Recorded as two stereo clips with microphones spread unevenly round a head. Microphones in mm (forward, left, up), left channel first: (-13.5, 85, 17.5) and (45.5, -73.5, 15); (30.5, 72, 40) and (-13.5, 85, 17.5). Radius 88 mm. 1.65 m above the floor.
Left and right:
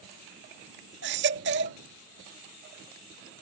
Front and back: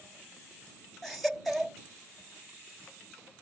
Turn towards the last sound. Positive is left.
turn(degrees=-95)